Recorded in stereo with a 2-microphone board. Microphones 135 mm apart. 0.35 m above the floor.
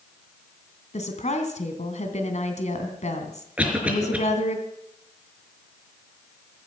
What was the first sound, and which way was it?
A woman speaking, 60° left (ahead or behind).